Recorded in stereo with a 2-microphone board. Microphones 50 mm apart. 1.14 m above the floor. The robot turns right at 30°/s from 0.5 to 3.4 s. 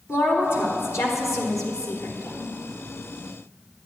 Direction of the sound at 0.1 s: 55° left.